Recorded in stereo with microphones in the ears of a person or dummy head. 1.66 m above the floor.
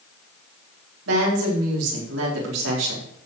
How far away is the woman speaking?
About 5 m.